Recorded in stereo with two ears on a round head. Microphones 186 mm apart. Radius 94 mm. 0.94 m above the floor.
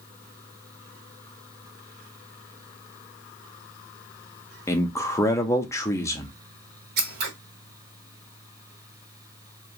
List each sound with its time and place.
4.7 s a man speaking: 15° left (ahead or behind), 0.6 m
7.0 s scissors: 50° right (ahead or behind), 0.9 m